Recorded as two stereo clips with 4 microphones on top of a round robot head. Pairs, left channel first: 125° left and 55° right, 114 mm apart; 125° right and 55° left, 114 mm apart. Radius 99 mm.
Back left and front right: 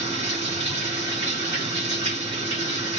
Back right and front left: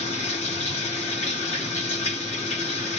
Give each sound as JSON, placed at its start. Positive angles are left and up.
{"t": 0.0, "sound": "running water", "azimuth_deg": -90, "distance_m": 3.5}